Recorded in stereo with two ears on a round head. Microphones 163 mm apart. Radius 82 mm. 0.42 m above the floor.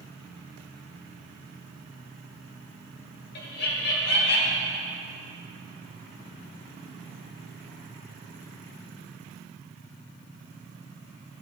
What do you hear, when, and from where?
3.4 s laughter: 60° left (ahead or behind), 2.5 m; by 4.7 s 70° left (ahead or behind), 3.5 m